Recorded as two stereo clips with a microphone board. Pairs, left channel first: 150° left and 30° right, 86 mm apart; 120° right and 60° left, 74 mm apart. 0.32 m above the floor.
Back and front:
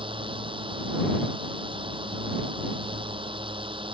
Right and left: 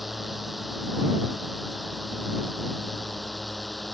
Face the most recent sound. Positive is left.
turn(degrees=-30)